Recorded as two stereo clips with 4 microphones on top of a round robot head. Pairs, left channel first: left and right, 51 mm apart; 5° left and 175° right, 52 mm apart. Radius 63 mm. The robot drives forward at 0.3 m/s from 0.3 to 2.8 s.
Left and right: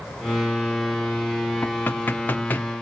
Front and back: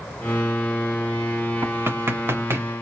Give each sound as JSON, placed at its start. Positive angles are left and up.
{"t": 1.6, "sound": "knocking", "azimuth_deg": 145, "distance_m": 1.5}